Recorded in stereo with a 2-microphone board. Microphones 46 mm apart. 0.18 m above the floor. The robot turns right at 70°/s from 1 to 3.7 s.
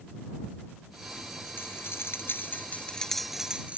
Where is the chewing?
No chewing in this recording.